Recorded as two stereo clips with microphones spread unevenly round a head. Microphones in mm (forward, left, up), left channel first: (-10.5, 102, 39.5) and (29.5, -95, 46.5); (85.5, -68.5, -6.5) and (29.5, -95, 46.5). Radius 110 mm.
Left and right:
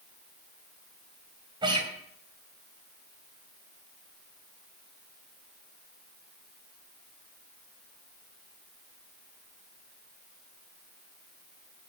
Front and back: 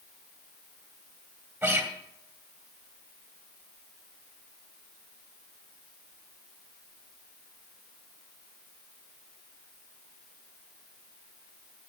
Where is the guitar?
145° right, 2.5 m.